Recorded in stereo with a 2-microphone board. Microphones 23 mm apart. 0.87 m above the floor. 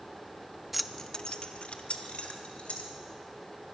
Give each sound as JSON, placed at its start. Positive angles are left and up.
{"t": 0.7, "sound": "keys jangling", "side_deg": -5, "distance_m": 0.6}